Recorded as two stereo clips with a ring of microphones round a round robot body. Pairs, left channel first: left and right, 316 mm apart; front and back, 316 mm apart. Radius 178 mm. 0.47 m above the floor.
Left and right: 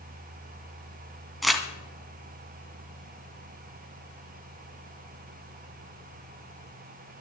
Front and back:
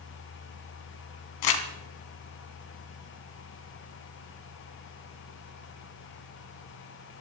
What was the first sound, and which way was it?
Crumpling, straight ahead.